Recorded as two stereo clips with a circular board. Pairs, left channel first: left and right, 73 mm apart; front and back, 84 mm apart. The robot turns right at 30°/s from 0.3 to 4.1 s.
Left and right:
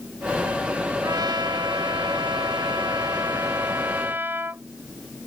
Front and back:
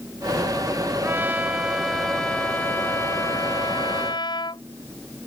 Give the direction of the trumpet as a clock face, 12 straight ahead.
4 o'clock.